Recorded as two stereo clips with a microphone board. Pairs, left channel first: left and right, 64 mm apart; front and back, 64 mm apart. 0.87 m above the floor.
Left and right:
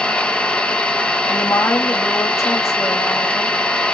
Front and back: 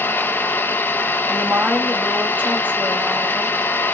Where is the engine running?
30° left, 0.8 m.